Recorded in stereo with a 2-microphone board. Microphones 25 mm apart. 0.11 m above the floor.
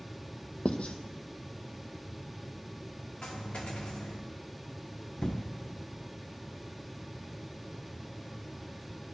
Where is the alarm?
No alarm in this recording.